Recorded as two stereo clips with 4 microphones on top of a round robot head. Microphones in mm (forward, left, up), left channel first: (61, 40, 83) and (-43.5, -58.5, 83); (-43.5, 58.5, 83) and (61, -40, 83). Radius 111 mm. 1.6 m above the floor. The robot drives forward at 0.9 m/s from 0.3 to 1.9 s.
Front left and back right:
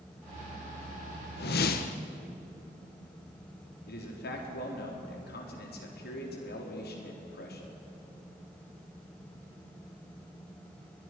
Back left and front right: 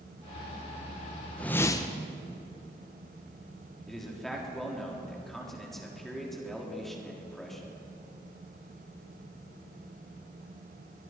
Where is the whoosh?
55° left, 1.2 m; by 2.0 s 80° left, 1.0 m.